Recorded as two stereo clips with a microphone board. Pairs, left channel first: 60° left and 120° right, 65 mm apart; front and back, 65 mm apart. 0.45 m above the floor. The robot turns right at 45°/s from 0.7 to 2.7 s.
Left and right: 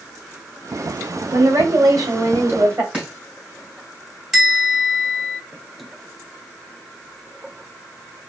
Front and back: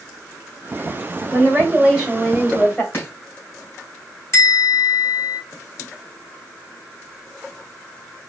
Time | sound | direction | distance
1.3 | a woman speaking | 125° right | 2 m
2.9 | chopping | 55° right | 3 m
4.3 | a bell | 40° right | 2 m